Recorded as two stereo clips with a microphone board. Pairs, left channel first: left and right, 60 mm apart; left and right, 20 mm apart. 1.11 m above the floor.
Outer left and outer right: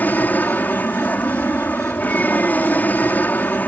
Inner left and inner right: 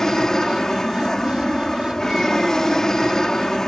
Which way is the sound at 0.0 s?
25° left (ahead or behind).